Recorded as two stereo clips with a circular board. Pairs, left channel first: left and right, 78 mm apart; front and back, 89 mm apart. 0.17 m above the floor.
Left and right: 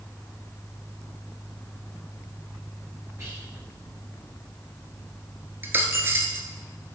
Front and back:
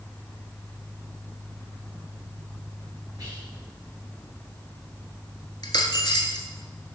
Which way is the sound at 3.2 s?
140° right.